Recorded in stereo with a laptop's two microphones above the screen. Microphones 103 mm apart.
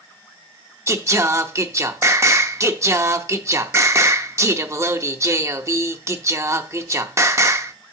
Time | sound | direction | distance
0.9 | singing | 30° right (ahead or behind) | 0.7 m